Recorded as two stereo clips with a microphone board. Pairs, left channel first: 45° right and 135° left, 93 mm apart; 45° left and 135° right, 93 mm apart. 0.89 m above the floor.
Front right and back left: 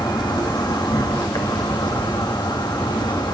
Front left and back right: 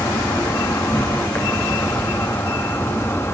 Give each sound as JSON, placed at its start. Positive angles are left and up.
{"t": 0.0, "sound": "an insect", "azimuth_deg": -15, "distance_m": 1.7}